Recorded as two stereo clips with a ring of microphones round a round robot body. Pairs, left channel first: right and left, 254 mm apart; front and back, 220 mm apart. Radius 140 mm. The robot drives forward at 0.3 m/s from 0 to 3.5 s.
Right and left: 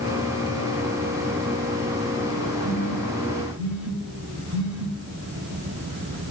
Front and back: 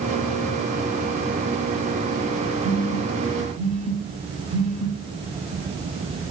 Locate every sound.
2.6 s a phone buzzing: 115° left, 5.5 m; by 4.9 s 120° left, 5.5 m